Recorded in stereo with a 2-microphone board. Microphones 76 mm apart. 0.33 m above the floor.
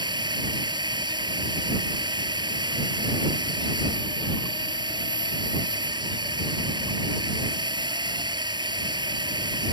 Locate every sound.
0.0 s a drone: 80° right